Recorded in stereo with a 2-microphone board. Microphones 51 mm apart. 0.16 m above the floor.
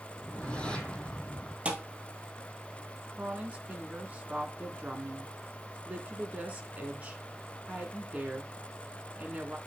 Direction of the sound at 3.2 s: 30° right (ahead or behind).